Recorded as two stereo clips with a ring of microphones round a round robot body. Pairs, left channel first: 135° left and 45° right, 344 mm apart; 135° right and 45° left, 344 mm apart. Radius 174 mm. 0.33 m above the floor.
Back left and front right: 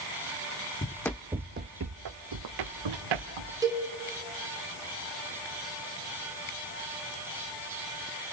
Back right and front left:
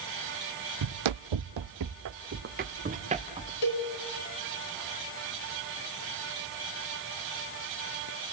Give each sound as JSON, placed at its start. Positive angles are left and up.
{"t": 0.8, "sound": "running footsteps", "azimuth_deg": 65, "distance_m": 1.1}
{"t": 3.6, "sound": "a cowbell", "azimuth_deg": -125, "distance_m": 4.0}